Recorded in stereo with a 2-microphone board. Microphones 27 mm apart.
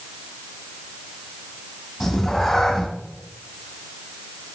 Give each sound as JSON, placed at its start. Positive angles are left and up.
{"t": 2.0, "sound": "a cat meowing", "side_deg": 5, "distance_m": 2.5}